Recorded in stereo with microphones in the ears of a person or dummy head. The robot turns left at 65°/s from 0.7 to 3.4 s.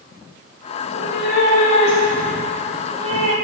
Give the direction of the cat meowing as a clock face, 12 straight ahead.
8 o'clock.